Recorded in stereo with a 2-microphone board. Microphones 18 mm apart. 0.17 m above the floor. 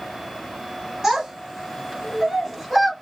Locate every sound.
1.0 s a child speaking: 35° right (ahead or behind), 1.1 m; by 2.9 s 10° right (ahead or behind), 1.3 m